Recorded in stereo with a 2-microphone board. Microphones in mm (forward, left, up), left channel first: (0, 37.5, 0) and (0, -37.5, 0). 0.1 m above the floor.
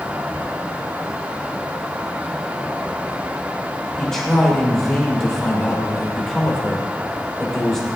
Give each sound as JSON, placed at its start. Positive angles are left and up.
{"t": 4.0, "sound": "a man speaking", "side_deg": 10, "distance_m": 7.5}